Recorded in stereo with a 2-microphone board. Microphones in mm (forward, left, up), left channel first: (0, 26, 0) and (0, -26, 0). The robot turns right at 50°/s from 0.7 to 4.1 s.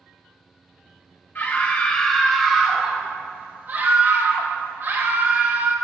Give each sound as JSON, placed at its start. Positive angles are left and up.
{"t": 1.4, "sound": "a scream", "azimuth_deg": 130, "distance_m": 1.8}